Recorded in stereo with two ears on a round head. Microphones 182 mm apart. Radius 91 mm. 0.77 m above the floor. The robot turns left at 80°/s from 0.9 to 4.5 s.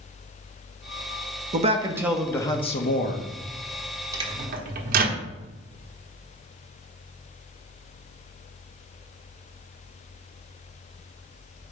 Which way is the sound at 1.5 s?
130° right.